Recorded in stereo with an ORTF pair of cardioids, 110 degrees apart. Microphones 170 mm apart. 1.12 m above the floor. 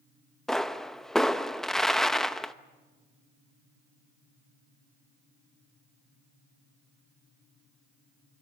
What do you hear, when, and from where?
0.5 s a pop: 5° left, 0.7 m